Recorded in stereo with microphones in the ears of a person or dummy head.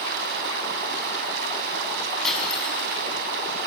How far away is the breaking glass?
About 5 m.